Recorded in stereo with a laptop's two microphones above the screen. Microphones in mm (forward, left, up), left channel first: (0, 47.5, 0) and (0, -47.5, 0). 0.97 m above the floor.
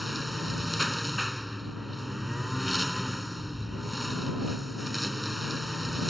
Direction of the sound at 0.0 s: Centre (ahead or behind).